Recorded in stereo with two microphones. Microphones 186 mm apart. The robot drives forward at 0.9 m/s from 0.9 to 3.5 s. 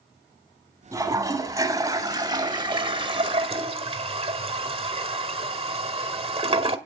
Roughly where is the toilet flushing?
Centre.